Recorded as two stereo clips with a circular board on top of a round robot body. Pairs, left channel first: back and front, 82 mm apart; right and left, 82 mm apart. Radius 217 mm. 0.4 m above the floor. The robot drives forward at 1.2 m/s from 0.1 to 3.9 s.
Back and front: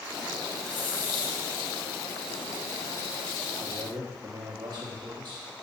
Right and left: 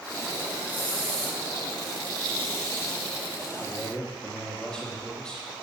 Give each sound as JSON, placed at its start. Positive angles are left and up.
{"t": 0.7, "sound": "a hiss", "azimuth_deg": -160, "distance_m": 0.5}
{"t": 3.6, "sound": "a man speaking", "azimuth_deg": -15, "distance_m": 2.0}